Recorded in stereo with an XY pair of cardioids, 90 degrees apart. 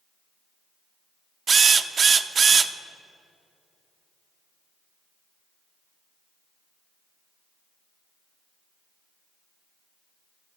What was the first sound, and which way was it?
A drill, 50° right.